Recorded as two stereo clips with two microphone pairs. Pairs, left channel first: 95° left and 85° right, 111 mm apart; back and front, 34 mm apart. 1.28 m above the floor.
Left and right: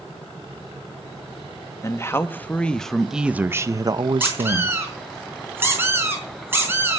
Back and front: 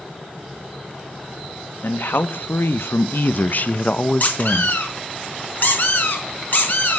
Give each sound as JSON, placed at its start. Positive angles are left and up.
{"t": 1.8, "sound": "a man speaking", "azimuth_deg": 160, "distance_m": 1.6}
{"t": 4.2, "sound": "a squeak", "azimuth_deg": -150, "distance_m": 5.0}